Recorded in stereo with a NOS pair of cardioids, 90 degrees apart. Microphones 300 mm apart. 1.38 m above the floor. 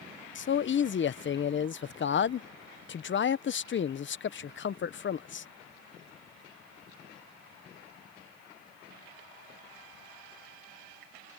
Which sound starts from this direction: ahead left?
A man speaking, at 0.3 s.